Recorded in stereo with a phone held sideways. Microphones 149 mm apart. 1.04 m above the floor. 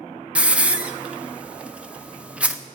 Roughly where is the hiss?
Centre.